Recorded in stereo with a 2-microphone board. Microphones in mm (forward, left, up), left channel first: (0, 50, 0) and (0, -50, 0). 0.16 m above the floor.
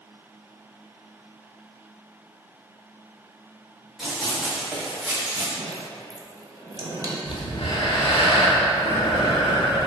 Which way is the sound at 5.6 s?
35° right (ahead or behind).